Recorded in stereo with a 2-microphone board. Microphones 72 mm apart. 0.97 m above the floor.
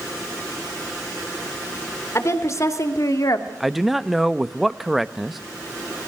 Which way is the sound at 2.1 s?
45° left (ahead or behind).